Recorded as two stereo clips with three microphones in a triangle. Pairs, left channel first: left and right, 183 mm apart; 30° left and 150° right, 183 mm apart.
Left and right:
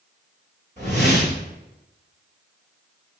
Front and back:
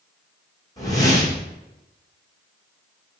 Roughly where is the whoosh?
Ahead right.